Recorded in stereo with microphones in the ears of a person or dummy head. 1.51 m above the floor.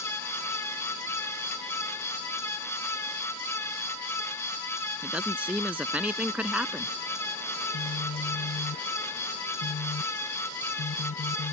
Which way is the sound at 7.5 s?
35° left (ahead or behind).